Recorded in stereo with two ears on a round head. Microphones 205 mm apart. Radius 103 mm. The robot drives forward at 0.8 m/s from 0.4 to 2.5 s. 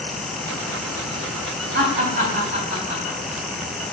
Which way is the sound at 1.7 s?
35° right (ahead or behind).